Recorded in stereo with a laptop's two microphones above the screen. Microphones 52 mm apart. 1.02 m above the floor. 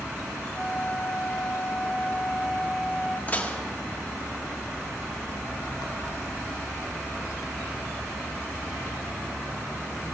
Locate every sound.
0.5 s a flute: 5° right (ahead or behind), 3.5 m
3.3 s dishes clattering: 30° left (ahead or behind), 1.3 m